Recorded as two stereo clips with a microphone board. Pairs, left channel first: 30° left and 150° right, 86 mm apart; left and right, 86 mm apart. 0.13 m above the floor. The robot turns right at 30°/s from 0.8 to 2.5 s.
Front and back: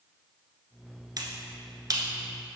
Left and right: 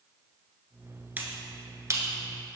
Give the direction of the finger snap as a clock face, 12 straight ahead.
5 o'clock.